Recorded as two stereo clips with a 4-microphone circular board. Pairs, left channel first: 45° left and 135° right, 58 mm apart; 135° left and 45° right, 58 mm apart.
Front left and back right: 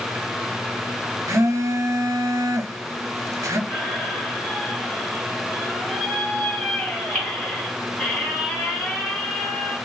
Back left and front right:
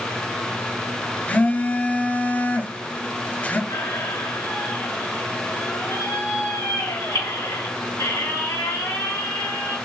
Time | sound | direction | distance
1.3 | a phone buzzing | 160° right | 0.6 m
3.7 | a squeak | 115° left | 2.5 m